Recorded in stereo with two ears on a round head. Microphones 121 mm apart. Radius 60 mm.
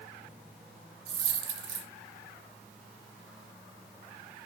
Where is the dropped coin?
45° right (ahead or behind), 1.6 m.